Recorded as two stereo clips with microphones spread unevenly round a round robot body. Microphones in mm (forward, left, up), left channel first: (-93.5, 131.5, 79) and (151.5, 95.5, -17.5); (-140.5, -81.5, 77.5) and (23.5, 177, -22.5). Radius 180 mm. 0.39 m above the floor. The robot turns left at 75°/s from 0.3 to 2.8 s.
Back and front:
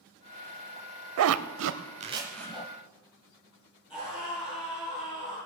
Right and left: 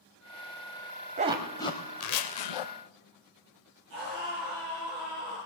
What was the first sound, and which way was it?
A zipper, 5° right.